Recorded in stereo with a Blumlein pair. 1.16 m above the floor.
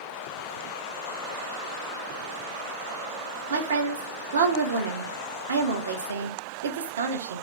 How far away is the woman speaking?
About 0.5 m.